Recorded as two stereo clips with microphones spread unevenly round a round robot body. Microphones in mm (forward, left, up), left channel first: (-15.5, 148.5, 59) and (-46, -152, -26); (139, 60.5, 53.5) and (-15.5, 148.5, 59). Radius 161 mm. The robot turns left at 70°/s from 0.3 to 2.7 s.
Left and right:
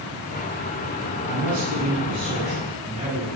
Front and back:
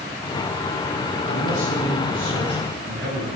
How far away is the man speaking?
About 7.5 m.